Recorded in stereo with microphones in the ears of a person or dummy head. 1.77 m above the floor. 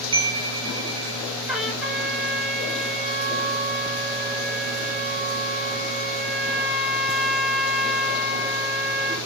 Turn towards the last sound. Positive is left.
turn(degrees=-5)  # may be behind; listen again after turning